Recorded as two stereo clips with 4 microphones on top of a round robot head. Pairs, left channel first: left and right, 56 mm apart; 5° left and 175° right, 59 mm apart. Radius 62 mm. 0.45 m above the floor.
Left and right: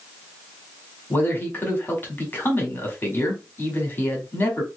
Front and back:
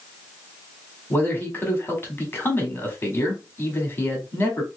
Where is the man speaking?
45° left, 1.8 m.